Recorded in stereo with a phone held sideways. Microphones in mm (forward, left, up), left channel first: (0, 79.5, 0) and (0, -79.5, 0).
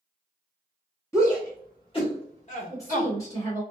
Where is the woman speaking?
20° left (ahead or behind), 1.3 m.